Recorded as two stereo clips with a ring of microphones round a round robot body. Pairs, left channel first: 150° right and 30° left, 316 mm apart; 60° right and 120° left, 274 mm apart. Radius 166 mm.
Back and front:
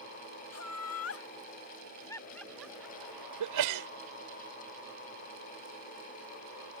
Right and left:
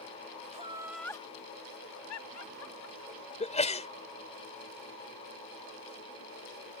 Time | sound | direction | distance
0.5 | laughter | straight behind | ?
3.4 | a sneeze | 5° left | ?